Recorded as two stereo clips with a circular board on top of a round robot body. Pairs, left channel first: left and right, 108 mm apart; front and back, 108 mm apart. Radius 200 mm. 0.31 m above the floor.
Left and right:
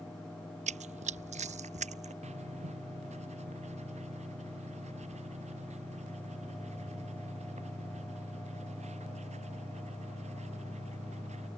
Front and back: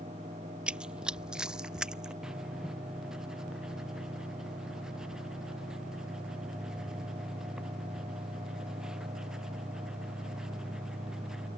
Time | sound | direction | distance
0.7 | running footsteps | 95° right | ?
2.2 | writing | 95° right | ?